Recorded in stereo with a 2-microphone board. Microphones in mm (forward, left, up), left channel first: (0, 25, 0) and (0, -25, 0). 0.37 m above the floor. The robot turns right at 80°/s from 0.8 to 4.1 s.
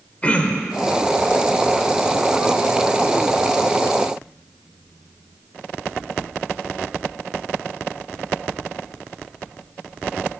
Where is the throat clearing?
25° left (ahead or behind), 0.8 m.